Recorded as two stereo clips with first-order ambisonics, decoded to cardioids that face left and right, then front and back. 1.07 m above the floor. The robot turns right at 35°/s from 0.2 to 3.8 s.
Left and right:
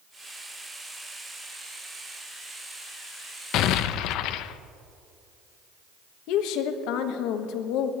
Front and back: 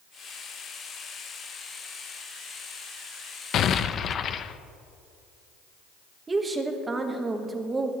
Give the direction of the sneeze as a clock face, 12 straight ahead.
I don't hear a sneeze.